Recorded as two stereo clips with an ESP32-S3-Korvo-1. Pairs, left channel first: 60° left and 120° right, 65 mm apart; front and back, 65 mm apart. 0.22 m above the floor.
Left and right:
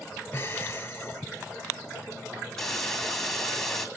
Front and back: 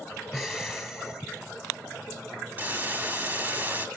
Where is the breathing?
90° left, 1.5 m.